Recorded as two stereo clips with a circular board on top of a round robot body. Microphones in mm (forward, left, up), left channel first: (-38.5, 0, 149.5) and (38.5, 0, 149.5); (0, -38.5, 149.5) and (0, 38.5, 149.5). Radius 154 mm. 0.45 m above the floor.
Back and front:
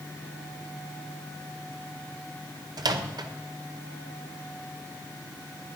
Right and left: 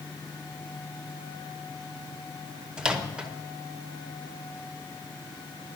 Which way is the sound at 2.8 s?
10° left.